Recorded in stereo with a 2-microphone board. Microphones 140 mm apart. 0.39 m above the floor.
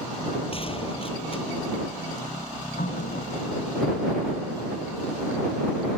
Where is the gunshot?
40° left (ahead or behind).